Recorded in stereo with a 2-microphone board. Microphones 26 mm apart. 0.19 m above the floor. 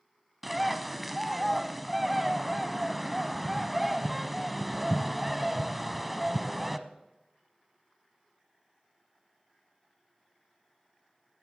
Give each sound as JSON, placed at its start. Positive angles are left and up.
{"t": 0.4, "sound": "a bird", "side_deg": -5, "distance_m": 0.7}